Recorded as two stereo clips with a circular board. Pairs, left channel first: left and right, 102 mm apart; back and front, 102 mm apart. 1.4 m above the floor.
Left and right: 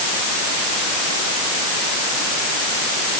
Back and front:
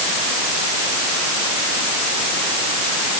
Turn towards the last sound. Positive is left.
No sound to turn to.